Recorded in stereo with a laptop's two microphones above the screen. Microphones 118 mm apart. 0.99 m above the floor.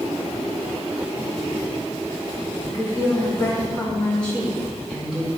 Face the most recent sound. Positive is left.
turn(degrees=-5)  # may be behind; listen again after turning